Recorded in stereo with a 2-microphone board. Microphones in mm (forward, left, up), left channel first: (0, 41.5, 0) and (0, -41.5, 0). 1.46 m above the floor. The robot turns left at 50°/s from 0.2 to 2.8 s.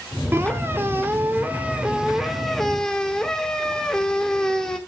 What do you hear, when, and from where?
0.3 s a squeak: 25° right (ahead or behind), 1.1 m; by 4.8 s 10° left (ahead or behind), 1.1 m